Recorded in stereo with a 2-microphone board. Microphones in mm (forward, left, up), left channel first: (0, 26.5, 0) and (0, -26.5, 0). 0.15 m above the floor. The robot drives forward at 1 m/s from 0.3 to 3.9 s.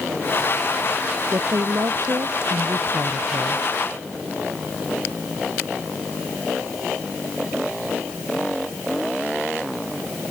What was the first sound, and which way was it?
A woman speaking, 65° right (ahead or behind).